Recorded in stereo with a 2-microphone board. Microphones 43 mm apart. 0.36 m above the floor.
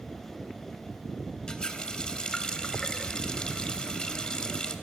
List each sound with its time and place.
1.5 s a running tap: 20° left (ahead or behind), 1.1 m